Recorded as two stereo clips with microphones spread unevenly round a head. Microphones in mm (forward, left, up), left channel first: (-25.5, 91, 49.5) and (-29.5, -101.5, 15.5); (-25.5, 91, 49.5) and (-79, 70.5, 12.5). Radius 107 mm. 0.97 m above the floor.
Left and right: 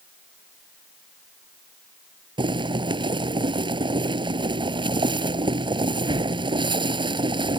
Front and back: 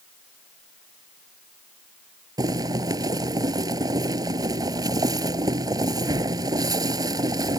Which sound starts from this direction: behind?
Boiling, at 2.4 s.